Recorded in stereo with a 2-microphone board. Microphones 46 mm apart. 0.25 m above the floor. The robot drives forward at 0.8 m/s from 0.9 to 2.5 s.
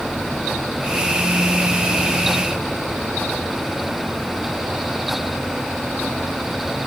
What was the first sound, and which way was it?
Only background noise.